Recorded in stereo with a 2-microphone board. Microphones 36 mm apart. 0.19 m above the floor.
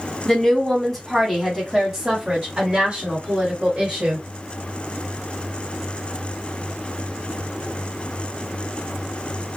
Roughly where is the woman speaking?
Centre.